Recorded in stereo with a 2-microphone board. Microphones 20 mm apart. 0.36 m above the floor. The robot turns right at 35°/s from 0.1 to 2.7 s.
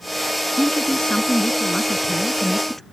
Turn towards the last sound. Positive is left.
turn(degrees=160)